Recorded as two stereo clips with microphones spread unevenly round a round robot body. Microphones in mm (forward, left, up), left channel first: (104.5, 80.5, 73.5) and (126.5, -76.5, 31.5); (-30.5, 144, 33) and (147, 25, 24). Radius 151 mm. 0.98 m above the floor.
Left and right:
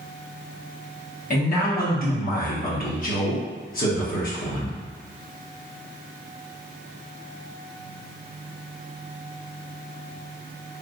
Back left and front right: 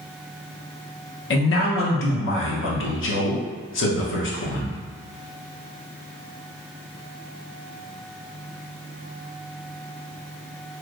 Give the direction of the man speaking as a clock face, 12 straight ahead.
7 o'clock.